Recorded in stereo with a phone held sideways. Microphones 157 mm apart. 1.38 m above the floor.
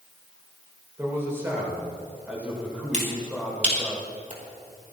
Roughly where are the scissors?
No scissors in this recording.